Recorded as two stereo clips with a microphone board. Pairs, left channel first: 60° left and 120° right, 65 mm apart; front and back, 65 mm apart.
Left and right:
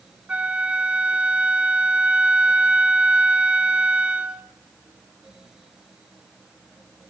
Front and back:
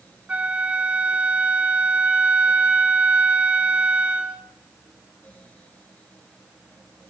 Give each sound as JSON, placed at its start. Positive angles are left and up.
{"t": 0.3, "sound": "a flute", "azimuth_deg": -150, "distance_m": 1.1}